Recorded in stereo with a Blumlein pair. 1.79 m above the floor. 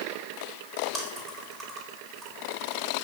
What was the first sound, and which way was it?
Chewing, 30° right.